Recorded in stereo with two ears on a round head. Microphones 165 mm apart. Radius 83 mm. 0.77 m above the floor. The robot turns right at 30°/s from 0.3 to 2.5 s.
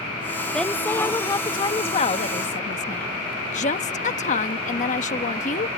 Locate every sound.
0.5 s a woman speaking: 5° left; by 5.7 s 65° left